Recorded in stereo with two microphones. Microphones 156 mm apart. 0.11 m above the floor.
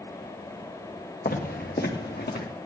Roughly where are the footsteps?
Left.